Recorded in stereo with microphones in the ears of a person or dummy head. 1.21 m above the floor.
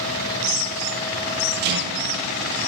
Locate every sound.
1.6 s a rattle: 55° right (ahead or behind), 0.6 m